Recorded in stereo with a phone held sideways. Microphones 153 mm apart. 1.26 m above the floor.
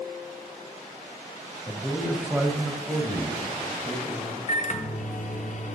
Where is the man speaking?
15° left (ahead or behind), 0.8 m; by 4.4 s 40° right (ahead or behind), 2.5 m.